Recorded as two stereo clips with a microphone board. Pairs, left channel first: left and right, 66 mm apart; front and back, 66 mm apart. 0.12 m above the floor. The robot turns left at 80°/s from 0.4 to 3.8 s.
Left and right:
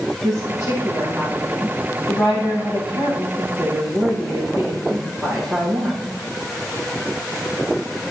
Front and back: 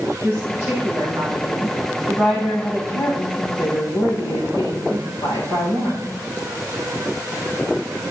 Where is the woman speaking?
110° right, 9.5 m; by 6.2 s 20° right, 9.5 m.